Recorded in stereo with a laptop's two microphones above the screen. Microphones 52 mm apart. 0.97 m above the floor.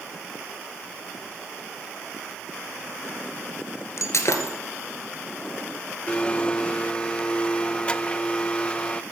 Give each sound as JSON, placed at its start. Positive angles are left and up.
{"t": 4.0, "sound": "breaking glass", "side_deg": 65, "distance_m": 2.5}
{"t": 6.1, "sound": "a blender", "side_deg": 20, "distance_m": 0.5}